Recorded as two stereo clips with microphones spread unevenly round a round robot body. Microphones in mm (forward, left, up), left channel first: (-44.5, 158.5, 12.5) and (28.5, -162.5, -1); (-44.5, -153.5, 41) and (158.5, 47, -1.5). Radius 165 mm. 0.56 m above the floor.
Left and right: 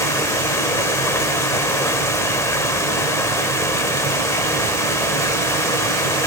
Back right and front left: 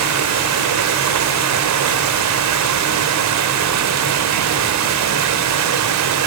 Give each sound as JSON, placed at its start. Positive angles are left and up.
{"t": 0.0, "sound": "running water", "azimuth_deg": 20, "distance_m": 1.2}